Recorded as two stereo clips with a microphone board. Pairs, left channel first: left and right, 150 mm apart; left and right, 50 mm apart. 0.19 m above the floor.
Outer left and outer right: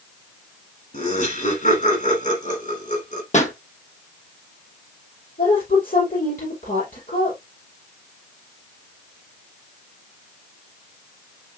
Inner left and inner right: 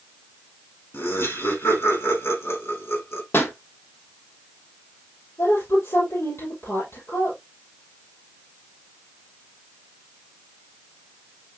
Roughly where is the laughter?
Left.